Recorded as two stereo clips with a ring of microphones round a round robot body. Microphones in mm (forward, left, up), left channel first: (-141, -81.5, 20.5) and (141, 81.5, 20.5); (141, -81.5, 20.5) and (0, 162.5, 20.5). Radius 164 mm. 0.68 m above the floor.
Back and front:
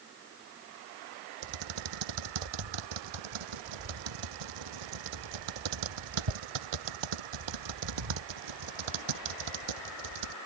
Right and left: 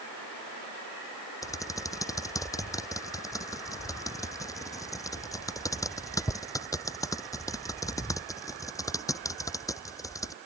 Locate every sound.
1.4 s typing on a keyboard: 20° left